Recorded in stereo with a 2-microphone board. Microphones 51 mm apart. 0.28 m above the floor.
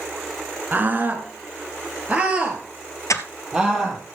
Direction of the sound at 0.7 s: 35° right (ahead or behind).